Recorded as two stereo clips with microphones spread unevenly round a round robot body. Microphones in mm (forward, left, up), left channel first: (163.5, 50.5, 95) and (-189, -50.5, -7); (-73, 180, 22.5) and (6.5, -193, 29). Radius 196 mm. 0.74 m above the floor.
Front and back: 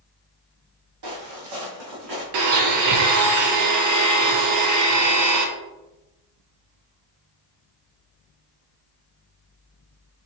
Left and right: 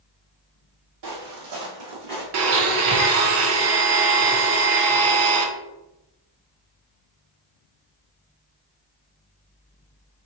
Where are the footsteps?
115° right, 1.4 m.